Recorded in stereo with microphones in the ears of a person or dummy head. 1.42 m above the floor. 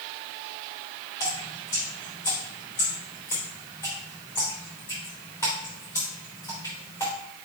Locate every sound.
1.2 s dripping: 20° left (ahead or behind), 3 m